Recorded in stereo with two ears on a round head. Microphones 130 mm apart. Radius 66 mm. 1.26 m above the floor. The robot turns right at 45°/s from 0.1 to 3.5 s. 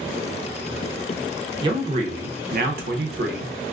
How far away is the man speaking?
About 0.7 m.